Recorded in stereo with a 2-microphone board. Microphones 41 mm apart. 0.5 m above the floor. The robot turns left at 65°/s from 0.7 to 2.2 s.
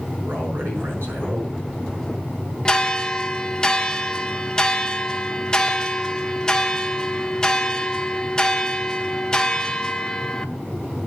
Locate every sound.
0.2 s a man speaking: 70° right, 6 m; by 1.5 s 125° right, 6 m
2.6 s a bell: 20° left (ahead or behind), 0.9 m